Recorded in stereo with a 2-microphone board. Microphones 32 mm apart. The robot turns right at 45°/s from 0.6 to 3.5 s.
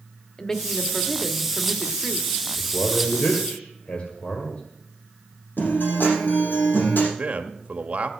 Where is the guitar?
85° left, 7 m.